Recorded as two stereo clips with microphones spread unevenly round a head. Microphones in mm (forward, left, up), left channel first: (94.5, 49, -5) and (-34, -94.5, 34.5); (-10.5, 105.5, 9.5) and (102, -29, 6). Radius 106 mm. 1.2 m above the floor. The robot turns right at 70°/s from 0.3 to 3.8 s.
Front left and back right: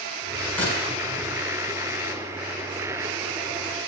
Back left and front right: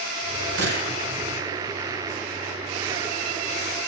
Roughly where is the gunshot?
Ahead right.